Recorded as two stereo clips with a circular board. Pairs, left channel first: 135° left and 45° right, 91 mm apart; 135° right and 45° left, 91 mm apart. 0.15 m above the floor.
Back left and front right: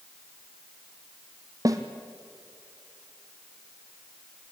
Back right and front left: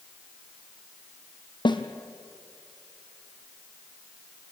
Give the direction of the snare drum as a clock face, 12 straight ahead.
3 o'clock.